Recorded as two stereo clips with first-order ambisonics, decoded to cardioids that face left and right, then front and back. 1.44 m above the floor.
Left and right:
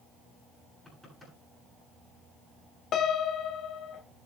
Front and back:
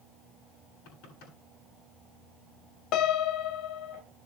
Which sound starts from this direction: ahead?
Knocking, at 0.8 s.